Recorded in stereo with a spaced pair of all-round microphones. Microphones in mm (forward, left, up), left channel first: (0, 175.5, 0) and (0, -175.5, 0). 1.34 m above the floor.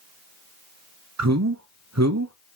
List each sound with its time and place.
1.2 s a man speaking: 50° right (ahead or behind), 0.7 m